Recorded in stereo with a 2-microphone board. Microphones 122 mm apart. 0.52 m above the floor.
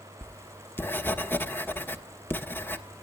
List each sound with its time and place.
0.2 s writing: 15° left (ahead or behind), 1.3 m